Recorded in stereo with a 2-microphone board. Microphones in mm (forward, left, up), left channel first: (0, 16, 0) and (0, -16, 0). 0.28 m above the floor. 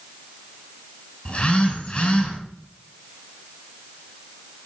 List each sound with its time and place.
1.2 s a phone buzzing: 30° left (ahead or behind), 2.5 m